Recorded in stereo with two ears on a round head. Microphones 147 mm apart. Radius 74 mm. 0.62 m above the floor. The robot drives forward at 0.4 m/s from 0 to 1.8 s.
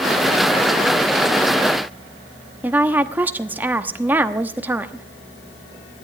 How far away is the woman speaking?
About 0.9 m.